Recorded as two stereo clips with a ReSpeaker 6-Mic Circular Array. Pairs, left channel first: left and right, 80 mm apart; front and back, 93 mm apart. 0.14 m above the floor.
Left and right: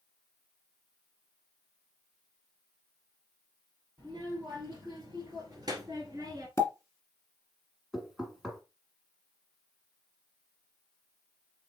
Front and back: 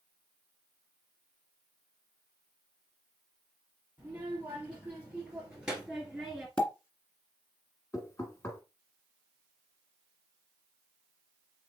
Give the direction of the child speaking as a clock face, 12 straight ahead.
4 o'clock.